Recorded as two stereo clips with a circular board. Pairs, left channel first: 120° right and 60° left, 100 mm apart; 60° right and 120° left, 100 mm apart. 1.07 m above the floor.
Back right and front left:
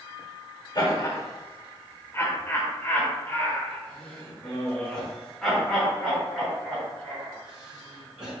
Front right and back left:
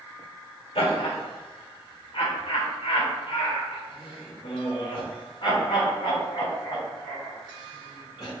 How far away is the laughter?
About 2.5 m.